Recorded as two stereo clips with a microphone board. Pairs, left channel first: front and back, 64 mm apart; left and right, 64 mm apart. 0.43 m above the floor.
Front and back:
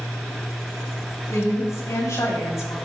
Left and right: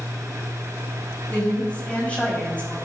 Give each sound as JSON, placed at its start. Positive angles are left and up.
{"t": 1.3, "sound": "a woman speaking", "azimuth_deg": 20, "distance_m": 3.0}